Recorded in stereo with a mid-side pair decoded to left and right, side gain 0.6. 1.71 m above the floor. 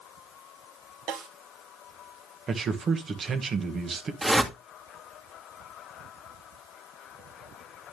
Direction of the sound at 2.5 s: 40° right.